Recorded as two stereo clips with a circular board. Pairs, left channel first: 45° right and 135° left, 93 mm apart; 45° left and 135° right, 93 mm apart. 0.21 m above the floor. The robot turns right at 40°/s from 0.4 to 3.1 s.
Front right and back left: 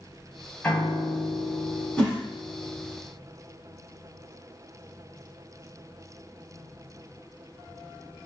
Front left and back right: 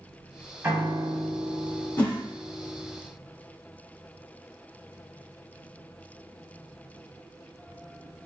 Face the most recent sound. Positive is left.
turn(degrees=60)